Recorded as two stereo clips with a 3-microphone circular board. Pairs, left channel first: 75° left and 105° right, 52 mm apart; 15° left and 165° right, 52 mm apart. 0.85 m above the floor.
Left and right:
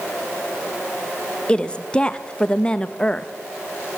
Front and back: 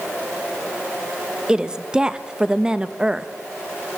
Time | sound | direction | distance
1.5 | a woman speaking | 130° left | 0.7 m